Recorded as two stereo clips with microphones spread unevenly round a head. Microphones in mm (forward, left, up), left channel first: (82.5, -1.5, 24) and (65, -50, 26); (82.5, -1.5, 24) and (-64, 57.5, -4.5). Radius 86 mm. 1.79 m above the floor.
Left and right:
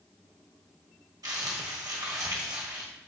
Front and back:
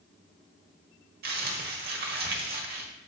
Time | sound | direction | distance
1.2 | crumpling | 160° right | 1.4 m